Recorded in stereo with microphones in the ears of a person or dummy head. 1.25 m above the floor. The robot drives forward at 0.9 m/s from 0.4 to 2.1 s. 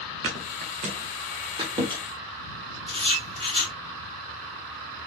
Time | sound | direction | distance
0.2 | a thud | 30° right (ahead or behind) | 0.8 m
2.9 | writing | 25° right (ahead or behind) | 1.9 m